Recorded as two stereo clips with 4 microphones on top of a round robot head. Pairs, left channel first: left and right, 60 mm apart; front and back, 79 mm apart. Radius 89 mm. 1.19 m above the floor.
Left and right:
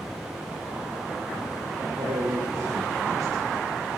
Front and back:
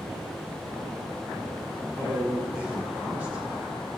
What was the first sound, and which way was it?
A man speaking, 110° right.